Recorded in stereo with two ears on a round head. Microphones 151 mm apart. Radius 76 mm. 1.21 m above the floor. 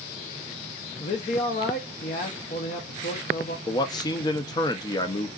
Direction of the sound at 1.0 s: 45° left (ahead or behind).